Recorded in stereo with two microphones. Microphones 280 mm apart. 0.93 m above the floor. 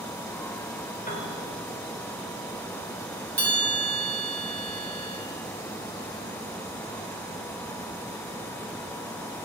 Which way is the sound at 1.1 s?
30° left (ahead or behind).